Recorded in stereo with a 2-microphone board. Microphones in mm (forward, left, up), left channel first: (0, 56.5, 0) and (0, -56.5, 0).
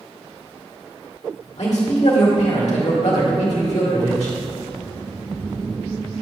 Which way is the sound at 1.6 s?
80° left.